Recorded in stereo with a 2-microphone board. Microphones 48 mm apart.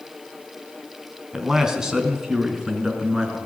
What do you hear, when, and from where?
1.3 s a man speaking: 10° right (ahead or behind), 3 m; by 3.4 s 15° right (ahead or behind), 5 m